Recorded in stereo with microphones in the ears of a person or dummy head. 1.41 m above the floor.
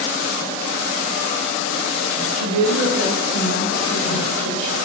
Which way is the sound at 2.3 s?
75° right (ahead or behind).